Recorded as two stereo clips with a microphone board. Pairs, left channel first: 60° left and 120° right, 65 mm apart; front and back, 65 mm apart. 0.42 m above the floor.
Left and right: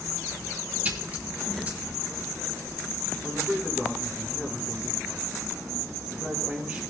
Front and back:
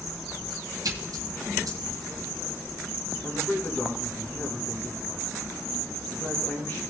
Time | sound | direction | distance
0.8 | a splash | 175° left | 1.9 m
3.2 | a man speaking | 50° right | 5 m